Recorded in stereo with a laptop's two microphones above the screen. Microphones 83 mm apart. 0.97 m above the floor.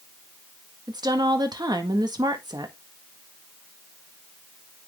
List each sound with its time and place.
0.9 s a woman speaking: 55° right (ahead or behind), 1.6 m